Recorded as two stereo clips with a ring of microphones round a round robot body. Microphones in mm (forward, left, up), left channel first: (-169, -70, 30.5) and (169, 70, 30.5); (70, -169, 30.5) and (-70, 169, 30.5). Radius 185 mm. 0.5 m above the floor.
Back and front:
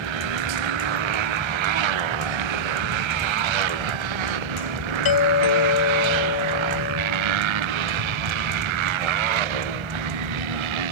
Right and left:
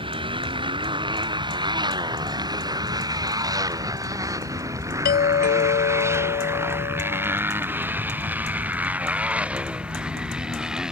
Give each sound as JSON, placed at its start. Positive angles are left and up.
{"t": 0.0, "sound": "a motorcycle", "azimuth_deg": 35}
{"t": 5.0, "sound": "a doorbell", "azimuth_deg": -130}